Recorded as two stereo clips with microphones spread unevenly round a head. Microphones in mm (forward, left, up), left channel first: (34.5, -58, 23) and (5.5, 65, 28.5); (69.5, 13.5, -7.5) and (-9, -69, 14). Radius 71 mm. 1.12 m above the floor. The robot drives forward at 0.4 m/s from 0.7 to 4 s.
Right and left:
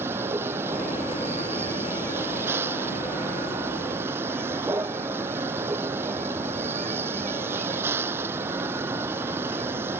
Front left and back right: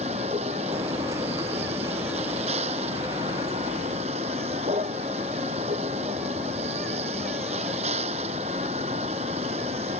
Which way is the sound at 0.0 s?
Straight behind.